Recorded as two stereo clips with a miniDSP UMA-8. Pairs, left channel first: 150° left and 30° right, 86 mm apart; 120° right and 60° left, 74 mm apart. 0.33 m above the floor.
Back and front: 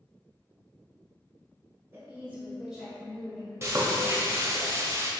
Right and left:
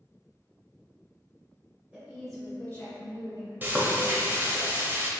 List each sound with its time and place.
1.9 s a woman speaking: 10° left, 1.6 m; by 3.5 s 135° right, 2 m
3.6 s frying: 10° left, 0.7 m